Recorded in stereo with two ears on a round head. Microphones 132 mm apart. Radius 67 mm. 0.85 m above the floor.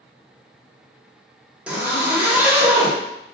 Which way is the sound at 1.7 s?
10° right (ahead or behind).